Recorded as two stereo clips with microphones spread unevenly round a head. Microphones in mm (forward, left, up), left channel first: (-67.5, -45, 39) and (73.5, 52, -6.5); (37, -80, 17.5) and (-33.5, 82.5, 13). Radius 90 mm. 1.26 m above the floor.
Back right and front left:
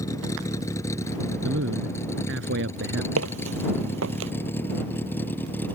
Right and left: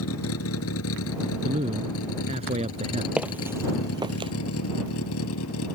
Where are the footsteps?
30° left; by 4.3 s 55° left.